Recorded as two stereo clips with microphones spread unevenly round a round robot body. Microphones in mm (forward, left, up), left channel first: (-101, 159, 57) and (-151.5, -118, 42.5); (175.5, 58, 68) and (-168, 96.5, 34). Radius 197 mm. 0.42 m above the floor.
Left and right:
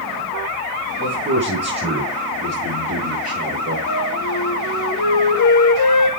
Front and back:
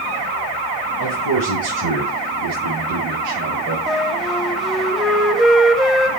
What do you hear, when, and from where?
1.0 s a man speaking: 150° right, 5 m; by 3.8 s 140° right, 7 m
3.9 s a flute: 85° left, 2.5 m